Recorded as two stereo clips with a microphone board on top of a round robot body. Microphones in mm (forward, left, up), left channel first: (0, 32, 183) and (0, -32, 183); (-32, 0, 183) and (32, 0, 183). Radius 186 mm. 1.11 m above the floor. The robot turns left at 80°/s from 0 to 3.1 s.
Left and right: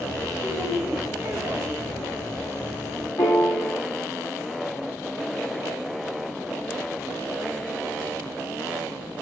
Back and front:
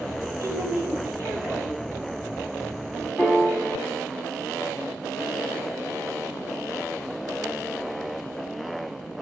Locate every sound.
0.4 s a woman speaking: 25° left, 4.5 m; by 1.7 s 80° right, 4.5 m
3.2 s a piano: 125° left, 0.9 m